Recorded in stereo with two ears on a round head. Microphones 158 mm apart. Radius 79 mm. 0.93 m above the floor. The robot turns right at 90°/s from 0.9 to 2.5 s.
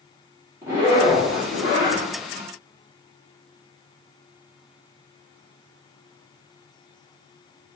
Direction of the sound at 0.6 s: 15° right.